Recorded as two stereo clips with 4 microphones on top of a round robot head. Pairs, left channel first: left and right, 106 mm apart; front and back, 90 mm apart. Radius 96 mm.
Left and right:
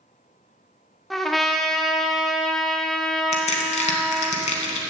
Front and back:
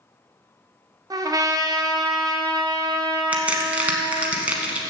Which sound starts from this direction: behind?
A trumpet, at 1.1 s.